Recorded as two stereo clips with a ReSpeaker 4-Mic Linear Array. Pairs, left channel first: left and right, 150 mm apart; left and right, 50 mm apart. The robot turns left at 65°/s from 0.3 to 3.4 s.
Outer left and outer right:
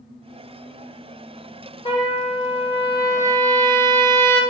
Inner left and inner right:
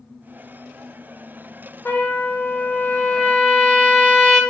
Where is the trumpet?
115° left, 1.1 m; by 4.4 s 15° left, 1.1 m.